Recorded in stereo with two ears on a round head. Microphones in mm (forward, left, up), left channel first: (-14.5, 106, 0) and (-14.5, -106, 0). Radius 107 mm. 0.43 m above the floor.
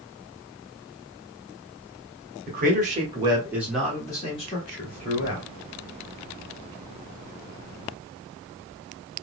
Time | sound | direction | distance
2.5 | a man speaking | 40° right (ahead or behind) | 1.5 m